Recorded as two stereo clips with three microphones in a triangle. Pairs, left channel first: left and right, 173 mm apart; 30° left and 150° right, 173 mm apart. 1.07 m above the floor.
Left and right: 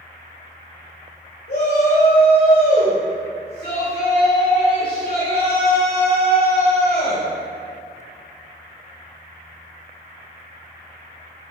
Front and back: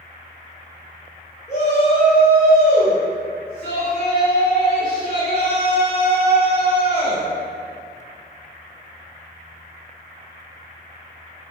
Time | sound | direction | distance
1.5 | a shout | 75° left | 3 m